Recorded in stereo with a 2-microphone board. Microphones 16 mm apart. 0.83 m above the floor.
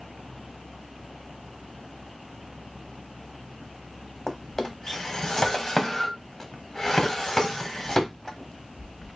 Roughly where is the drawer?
Left.